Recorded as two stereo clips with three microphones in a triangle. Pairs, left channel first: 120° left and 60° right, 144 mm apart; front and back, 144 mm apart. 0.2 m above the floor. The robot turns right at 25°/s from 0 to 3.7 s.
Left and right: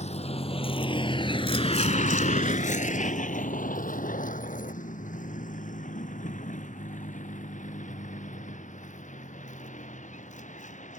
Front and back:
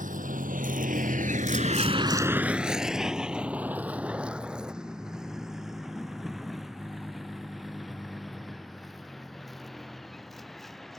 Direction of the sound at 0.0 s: 160° left.